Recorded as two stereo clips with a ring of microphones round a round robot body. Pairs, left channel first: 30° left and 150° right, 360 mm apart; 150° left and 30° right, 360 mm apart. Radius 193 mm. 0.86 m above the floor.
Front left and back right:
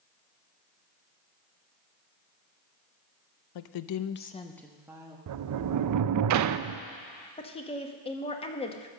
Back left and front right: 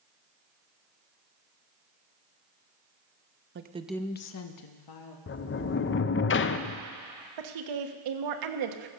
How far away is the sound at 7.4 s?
About 1.2 m.